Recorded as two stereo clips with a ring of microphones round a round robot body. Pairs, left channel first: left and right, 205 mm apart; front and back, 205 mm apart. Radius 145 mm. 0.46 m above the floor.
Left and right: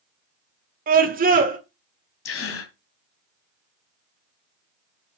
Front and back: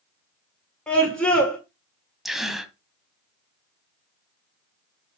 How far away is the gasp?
About 1.8 m.